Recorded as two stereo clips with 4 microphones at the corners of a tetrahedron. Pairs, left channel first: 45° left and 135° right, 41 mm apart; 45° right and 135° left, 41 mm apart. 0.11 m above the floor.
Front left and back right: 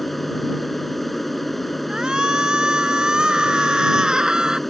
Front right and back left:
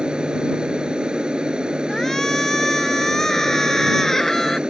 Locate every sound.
0.0 s an aircraft: 125° left
1.9 s a shout: 105° right